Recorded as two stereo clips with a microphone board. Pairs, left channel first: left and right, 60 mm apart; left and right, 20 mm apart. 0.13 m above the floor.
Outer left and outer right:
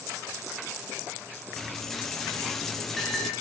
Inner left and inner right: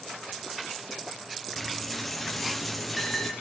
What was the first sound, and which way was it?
A dropped coin, 5° left (ahead or behind).